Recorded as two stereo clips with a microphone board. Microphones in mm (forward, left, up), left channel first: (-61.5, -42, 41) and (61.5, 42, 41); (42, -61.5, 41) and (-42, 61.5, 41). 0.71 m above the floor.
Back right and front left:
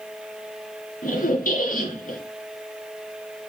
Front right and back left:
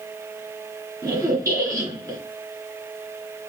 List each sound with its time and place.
1.0 s a squeak: 165° right, 3 m